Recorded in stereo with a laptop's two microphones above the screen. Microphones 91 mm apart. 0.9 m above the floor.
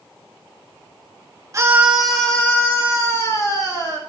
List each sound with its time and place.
1.5 s a scream: 30° right (ahead or behind), 0.6 m; by 4.0 s 40° left (ahead or behind), 1.9 m